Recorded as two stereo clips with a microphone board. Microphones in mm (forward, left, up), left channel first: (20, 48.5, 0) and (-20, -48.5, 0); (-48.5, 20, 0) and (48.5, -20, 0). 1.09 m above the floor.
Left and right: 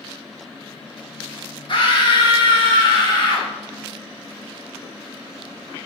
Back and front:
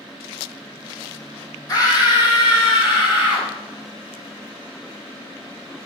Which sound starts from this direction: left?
A scream, at 1.7 s.